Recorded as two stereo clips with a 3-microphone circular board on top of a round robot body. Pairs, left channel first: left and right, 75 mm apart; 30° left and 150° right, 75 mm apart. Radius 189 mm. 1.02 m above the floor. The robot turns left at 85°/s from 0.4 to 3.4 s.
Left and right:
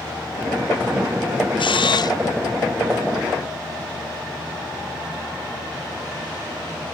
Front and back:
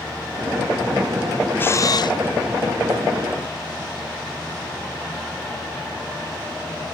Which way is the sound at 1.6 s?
95° left.